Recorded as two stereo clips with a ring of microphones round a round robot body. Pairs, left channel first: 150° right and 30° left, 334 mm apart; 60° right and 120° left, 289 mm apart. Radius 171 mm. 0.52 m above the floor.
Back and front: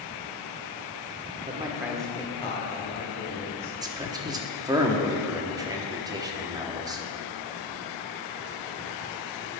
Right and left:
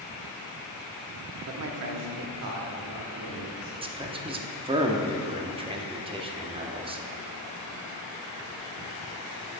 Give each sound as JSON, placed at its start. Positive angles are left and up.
{"t": 1.5, "sound": "a man speaking", "azimuth_deg": 95, "distance_m": 1.2}
{"t": 3.8, "sound": "a man speaking", "azimuth_deg": 90, "distance_m": 0.9}